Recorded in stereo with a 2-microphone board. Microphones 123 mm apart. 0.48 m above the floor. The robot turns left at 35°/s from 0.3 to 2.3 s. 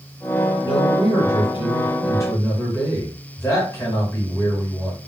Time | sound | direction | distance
0.6 | a man speaking | 90° left | 2.5 m